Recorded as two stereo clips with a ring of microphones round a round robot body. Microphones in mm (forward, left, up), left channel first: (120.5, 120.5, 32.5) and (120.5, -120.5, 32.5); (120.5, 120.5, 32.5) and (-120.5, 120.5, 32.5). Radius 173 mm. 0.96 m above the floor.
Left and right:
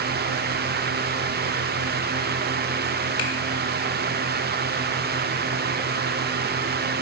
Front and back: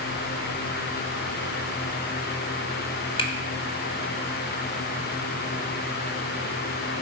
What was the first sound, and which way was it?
A finger snap, 70° left.